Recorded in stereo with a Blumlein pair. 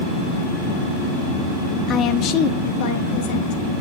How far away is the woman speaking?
About 0.9 m.